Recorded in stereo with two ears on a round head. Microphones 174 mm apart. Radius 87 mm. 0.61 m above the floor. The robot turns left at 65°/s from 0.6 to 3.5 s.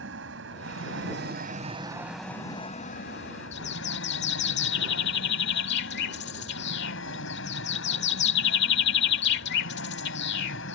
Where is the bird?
60° left (ahead or behind).